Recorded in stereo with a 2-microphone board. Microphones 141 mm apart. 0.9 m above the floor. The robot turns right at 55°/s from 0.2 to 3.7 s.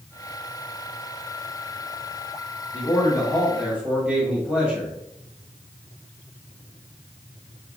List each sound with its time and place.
2.7 s a man speaking: 135° left, 1.9 m; by 4.9 s 175° right, 1.9 m